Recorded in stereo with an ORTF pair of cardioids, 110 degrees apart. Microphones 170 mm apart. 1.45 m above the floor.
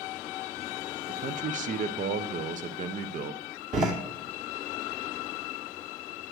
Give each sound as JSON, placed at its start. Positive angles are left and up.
{"t": 1.1, "sound": "a man speaking", "azimuth_deg": -50, "distance_m": 0.8}
{"t": 3.7, "sound": "a door slam", "azimuth_deg": -45, "distance_m": 2.5}